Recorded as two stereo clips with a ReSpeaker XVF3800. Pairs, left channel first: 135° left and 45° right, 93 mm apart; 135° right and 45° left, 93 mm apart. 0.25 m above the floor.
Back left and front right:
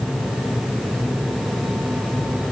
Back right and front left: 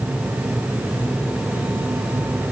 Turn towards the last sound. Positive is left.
No sound to turn to.